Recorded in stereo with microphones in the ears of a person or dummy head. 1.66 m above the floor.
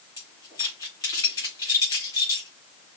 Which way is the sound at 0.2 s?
25° left (ahead or behind).